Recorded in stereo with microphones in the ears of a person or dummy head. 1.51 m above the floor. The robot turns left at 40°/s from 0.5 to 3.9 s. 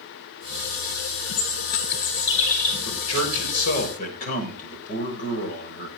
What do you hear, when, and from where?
1.3 s a bird: 100° left, 4 m; by 2.8 s 40° left, 4 m
2.9 s a man speaking: 90° left, 6.5 m; by 5.9 s 45° left, 6.5 m